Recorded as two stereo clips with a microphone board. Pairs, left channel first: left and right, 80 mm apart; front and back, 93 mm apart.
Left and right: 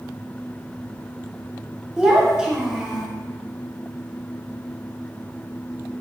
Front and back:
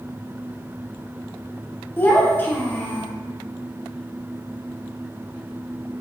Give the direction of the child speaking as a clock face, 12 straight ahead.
1 o'clock.